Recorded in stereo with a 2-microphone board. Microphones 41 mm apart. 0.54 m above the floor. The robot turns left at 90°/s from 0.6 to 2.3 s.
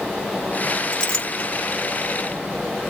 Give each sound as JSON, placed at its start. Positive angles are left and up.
{"t": 0.9, "sound": "a clink", "side_deg": 15, "distance_m": 1.0}